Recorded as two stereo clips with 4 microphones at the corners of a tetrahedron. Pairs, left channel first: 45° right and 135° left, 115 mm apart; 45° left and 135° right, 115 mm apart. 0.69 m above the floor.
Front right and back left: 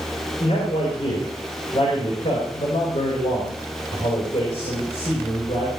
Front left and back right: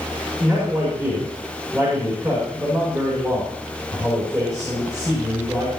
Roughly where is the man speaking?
Right.